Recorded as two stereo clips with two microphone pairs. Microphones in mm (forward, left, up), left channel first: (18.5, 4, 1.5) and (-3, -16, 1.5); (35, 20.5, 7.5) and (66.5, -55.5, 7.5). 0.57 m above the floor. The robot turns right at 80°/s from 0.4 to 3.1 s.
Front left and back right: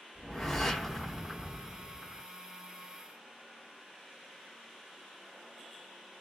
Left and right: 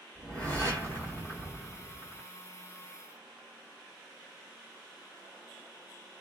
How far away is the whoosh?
About 1.2 m.